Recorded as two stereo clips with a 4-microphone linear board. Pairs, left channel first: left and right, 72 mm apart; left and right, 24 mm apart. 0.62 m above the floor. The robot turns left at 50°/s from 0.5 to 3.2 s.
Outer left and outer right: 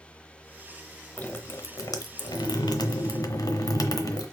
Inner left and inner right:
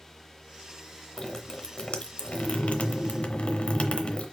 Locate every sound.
1.2 s dripping: 160° left, 0.8 m; by 4.3 s 60° left, 0.8 m